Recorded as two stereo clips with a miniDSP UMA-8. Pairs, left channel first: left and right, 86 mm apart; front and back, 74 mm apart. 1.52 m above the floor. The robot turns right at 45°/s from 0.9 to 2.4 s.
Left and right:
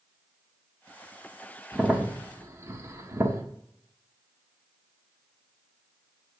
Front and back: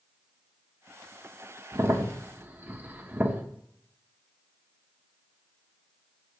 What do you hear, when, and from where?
1.7 s a crack: 160° right, 1.3 m; by 3.4 s 130° right, 1.3 m